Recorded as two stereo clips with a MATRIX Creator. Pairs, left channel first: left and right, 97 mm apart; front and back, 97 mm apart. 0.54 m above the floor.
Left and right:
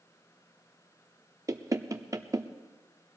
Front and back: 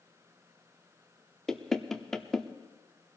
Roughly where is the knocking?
Right.